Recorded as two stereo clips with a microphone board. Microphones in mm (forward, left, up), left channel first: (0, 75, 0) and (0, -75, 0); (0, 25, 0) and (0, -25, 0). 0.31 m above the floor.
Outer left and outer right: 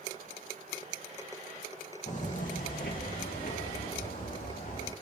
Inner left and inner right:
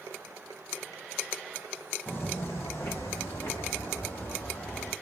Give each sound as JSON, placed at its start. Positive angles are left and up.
{"t": 2.1, "sound": "footsteps", "side_deg": 50, "distance_m": 0.8}